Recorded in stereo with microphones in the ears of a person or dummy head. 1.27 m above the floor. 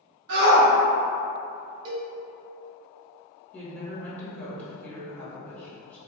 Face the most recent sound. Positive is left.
turn(degrees=10)  # may be behind; listen again after turning